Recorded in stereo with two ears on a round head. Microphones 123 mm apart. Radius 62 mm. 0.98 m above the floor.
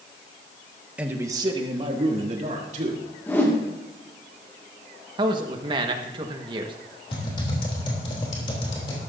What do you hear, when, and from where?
1.0 s a man speaking: 10° right (ahead or behind), 1.2 m; by 3.0 s 60° right (ahead or behind), 3 m
3.3 s a whoosh: 15° left (ahead or behind), 2 m
5.2 s a man speaking: 35° right (ahead or behind), 1.3 m
7.1 s typing on a keyboard: 35° left (ahead or behind), 3 m